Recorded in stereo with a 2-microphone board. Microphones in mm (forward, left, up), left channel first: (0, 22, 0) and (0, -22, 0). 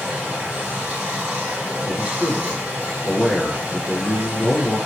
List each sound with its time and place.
0.0 s running water: 20° right (ahead or behind), 1.5 m
1.9 s a man speaking: 20° right (ahead or behind), 1.1 m